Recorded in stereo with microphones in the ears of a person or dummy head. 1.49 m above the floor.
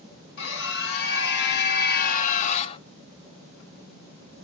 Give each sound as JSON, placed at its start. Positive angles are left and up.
{"t": 0.4, "sound": "a scream", "side_deg": 65, "distance_m": 2.0}